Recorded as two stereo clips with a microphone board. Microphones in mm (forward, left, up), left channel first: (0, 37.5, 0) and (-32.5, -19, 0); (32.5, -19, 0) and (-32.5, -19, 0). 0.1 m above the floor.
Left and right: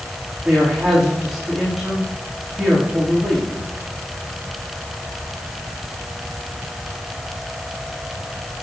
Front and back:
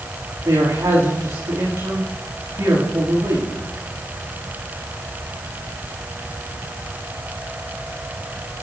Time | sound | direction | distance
0.5 | a man speaking | 165° left | 9 m